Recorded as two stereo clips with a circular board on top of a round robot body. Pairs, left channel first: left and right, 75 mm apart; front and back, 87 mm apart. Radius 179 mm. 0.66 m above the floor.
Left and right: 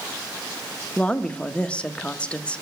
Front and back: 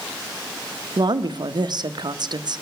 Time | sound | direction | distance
1.0 | a woman speaking | 160° left | 0.9 m